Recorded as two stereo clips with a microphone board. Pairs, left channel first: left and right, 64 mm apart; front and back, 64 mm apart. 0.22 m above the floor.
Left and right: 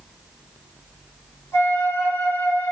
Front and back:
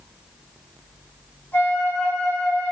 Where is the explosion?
No explosion in this recording.